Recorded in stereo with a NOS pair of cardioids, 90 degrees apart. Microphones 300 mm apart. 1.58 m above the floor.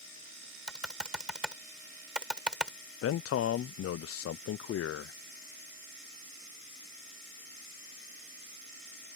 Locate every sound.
0.7 s typing on a keyboard: 5° right
3.0 s a man speaking: 50° left